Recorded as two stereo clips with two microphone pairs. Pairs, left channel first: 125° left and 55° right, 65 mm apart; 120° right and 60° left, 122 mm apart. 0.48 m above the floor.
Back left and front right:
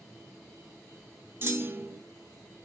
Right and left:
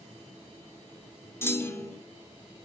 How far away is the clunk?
About 0.9 m.